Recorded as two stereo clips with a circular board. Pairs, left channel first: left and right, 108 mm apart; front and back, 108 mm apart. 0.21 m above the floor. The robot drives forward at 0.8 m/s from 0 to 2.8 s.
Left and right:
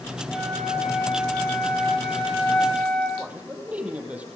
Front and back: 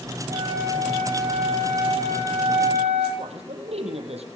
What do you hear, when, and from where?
0.3 s a flute: 170° left, 5.5 m; by 3.1 s 175° left, 7.5 m
3.2 s a man speaking: 170° right, 6.5 m